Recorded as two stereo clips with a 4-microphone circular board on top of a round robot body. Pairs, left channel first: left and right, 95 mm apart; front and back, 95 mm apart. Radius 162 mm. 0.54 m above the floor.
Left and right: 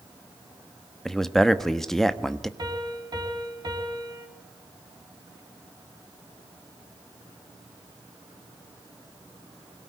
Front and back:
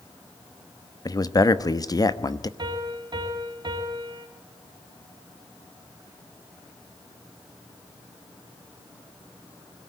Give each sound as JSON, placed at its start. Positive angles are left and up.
{"t": 1.1, "sound": "a man speaking", "azimuth_deg": 5, "distance_m": 1.4}
{"t": 2.6, "sound": "a piano", "azimuth_deg": -140, "distance_m": 4.0}